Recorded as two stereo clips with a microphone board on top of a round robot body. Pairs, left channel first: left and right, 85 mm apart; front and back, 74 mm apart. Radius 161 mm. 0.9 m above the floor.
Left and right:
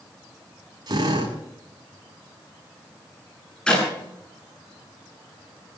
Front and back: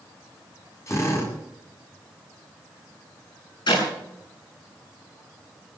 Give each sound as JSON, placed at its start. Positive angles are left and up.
{"t": 0.9, "sound": "a drill", "azimuth_deg": -50, "distance_m": 9.0}
{"t": 3.7, "sound": "a clap", "azimuth_deg": 10, "distance_m": 9.0}